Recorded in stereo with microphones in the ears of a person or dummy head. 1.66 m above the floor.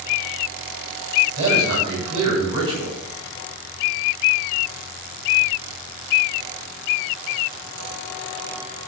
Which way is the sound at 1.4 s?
25° right (ahead or behind).